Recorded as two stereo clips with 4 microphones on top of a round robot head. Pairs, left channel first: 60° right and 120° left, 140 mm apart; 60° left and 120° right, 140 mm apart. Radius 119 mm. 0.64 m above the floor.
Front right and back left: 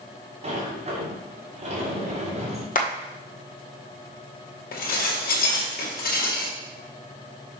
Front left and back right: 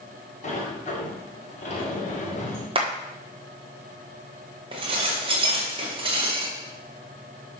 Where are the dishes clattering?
70° right, 2 m.